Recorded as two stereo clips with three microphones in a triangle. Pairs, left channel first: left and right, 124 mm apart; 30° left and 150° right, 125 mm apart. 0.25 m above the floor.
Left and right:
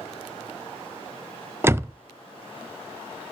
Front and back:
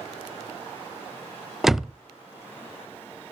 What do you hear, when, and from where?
1.6 s a door slam: 65° right, 0.6 m